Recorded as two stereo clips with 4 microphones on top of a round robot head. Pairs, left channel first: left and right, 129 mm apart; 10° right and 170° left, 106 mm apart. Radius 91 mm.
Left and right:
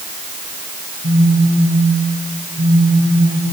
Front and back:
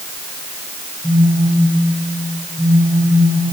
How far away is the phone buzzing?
About 3.5 m.